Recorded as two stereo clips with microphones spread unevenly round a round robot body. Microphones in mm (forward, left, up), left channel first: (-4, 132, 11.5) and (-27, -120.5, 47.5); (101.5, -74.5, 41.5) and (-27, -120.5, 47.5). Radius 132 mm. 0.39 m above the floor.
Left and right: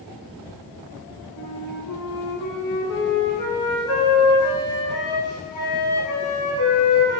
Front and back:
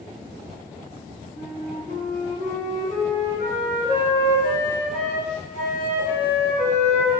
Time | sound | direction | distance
1.4 | a flute | 80° left | 1.3 m